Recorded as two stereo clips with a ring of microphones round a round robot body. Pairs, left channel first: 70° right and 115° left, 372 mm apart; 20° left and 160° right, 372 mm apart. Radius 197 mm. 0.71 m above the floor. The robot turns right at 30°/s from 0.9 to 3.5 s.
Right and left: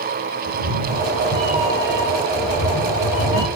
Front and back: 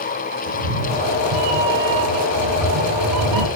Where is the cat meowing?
165° left, 4 m; by 3.5 s 115° right, 4 m.